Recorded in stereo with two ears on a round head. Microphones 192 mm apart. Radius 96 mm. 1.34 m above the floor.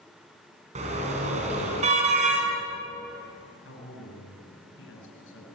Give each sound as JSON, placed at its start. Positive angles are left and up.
{"t": 0.8, "sound": "a car horn", "side_deg": -30, "distance_m": 5.5}
{"t": 3.6, "sound": "a man speaking", "side_deg": 70, "distance_m": 8.0}